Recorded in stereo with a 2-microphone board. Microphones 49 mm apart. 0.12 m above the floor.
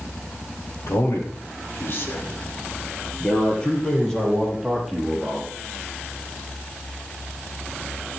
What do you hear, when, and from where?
0.9 s a man speaking: 65° left (ahead or behind), 4 m; by 5.5 s 10° right (ahead or behind), 4.5 m